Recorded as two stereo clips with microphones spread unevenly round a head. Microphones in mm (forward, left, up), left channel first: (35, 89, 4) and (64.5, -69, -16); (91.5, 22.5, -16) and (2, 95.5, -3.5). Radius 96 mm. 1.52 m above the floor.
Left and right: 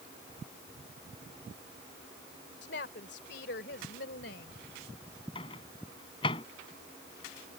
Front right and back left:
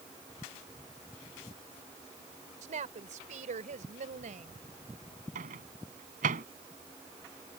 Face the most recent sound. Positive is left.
turn(degrees=165)